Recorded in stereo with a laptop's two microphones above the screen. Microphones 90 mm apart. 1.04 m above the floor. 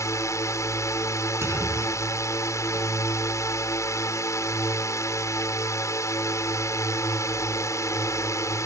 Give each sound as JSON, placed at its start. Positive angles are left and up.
{"t": 0.0, "sound": "a drone", "side_deg": 35}
{"t": 1.4, "sound": "a clunk", "side_deg": -30}